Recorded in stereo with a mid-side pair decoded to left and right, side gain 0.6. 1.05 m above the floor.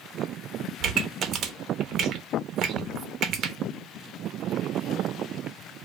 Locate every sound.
0.8 s a pop: 50° right, 0.6 m